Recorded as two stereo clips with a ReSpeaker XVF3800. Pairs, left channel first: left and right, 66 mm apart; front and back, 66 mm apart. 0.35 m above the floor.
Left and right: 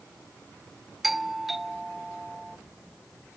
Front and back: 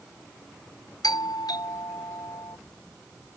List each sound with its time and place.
1.0 s a doorbell: 5° right